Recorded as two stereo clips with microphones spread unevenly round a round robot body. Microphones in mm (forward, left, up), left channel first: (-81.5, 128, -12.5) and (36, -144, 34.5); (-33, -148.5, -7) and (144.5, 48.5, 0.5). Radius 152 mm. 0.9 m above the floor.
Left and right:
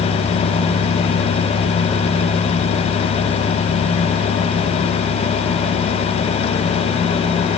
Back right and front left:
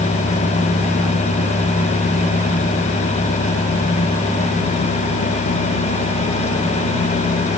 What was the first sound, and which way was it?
Only background noise.